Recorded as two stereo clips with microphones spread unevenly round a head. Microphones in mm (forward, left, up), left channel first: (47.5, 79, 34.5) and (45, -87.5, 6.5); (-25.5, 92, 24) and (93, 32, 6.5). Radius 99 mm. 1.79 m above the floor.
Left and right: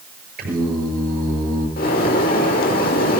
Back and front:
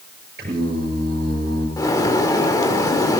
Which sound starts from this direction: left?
A bird, at 1.8 s.